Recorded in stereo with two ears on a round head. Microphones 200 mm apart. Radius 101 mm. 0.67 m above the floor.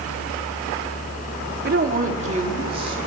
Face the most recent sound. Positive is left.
turn(degrees=-25)  # may be behind; listen again after turning